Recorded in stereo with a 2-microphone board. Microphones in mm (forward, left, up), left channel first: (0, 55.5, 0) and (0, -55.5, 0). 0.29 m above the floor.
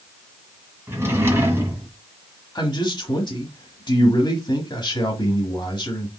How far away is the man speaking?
About 1.5 m.